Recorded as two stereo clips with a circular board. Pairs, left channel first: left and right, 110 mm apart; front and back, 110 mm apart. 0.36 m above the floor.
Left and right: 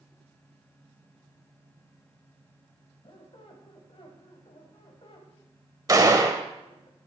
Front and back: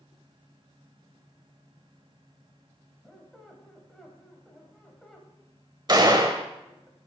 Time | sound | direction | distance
3.0 | a squeak | 85° left | 1.4 m
5.9 | a gunshot | 140° right | 0.8 m